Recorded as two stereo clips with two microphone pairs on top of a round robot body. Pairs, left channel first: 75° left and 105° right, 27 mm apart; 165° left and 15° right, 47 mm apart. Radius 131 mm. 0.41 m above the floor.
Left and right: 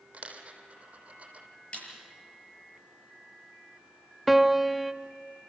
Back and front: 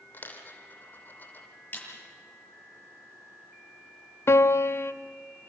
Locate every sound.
0.1 s a dropped coin: 145° right, 3 m
1.7 s a snare drum: 120° left, 7.5 m
4.3 s a piano: 170° left, 0.8 m